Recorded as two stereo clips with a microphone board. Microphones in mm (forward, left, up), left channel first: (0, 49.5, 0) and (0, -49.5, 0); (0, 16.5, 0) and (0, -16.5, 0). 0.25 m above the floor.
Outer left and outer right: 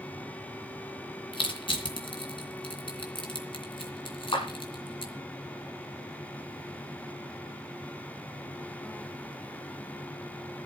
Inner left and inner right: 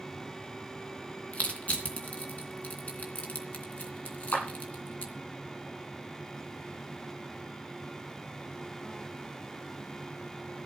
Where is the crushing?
65° left (ahead or behind), 3 m.